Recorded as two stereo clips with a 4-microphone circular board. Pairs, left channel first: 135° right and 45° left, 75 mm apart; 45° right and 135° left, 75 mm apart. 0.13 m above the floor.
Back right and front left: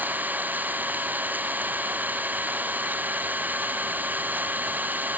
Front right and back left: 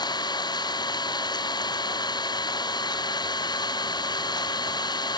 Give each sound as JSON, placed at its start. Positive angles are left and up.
{"t": 0.0, "sound": "an engine running", "azimuth_deg": -20}